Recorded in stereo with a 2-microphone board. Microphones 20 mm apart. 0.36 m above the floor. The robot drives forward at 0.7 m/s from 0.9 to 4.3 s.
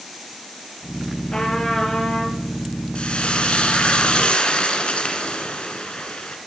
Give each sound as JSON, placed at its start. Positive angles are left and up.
{"t": 1.3, "sound": "a trumpet", "side_deg": 40, "distance_m": 5.5}
{"t": 3.0, "sound": "frying", "side_deg": 75, "distance_m": 2.5}